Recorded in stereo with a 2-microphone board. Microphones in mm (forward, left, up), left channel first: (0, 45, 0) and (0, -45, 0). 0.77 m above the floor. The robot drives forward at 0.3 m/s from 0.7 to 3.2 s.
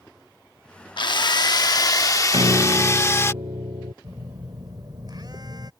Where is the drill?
60° left (ahead or behind); by 3.3 s 30° left (ahead or behind).